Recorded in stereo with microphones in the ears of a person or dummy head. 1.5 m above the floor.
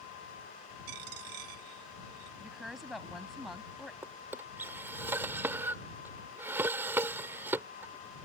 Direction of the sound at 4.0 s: 10° right (ahead or behind).